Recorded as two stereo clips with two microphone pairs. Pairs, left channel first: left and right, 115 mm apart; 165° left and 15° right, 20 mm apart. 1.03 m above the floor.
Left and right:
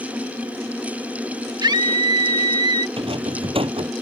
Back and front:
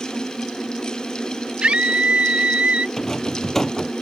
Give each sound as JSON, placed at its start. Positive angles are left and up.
{"t": 1.6, "sound": "a scream", "azimuth_deg": -40}
{"t": 3.0, "sound": "a rattle", "azimuth_deg": -125}